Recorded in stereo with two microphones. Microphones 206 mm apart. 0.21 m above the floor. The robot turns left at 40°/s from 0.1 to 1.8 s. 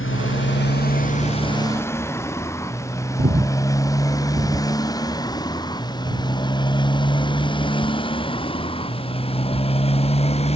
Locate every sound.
0.0 s a motorcycle: 75° left (ahead or behind); by 10.6 s 30° left (ahead or behind)
3.2 s breathing: 50° right (ahead or behind)